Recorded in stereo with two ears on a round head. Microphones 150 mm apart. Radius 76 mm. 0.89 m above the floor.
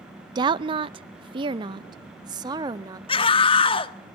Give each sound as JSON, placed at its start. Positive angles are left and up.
{"t": 0.3, "sound": "a woman speaking", "side_deg": -25, "distance_m": 0.5}
{"t": 3.1, "sound": "a scream", "side_deg": 35, "distance_m": 1.5}